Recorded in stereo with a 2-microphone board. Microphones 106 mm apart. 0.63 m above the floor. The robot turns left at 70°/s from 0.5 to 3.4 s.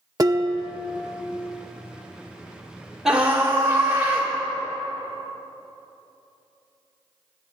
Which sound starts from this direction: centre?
A scream, at 3.0 s.